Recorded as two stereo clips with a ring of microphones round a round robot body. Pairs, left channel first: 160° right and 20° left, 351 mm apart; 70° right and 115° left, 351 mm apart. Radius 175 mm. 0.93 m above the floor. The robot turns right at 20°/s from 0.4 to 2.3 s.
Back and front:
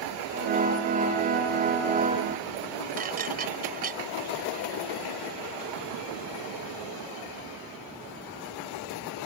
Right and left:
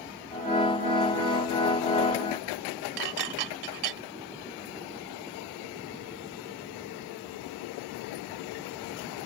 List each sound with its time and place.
3.0 s dishes clattering: 90° left